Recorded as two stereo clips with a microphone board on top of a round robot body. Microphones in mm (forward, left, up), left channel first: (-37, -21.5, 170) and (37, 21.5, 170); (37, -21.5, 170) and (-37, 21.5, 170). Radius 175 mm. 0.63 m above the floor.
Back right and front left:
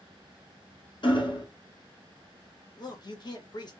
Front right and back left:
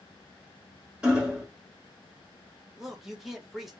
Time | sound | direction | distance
1.0 | hammering | 135° right | 1.4 m
2.8 | a man speaking | 125° right | 1.3 m